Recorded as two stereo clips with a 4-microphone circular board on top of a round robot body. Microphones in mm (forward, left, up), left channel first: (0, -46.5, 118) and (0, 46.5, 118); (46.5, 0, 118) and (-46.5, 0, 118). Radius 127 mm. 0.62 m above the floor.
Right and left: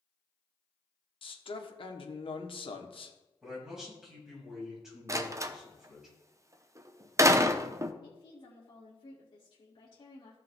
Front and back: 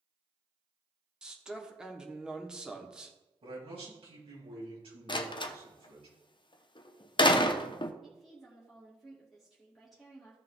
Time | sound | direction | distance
1.2 | a man speaking | 100° right | 1.5 m
3.4 | a man speaking | 175° left | 5 m
5.1 | a door slam | 35° left | 0.7 m
8.0 | a woman speaking | 90° right | 2 m